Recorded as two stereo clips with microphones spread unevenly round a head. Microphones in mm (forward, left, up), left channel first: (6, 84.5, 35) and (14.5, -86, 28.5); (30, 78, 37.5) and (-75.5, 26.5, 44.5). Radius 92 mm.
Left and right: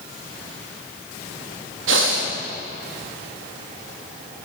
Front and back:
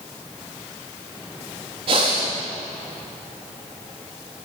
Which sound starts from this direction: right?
Breathing, at 1.9 s.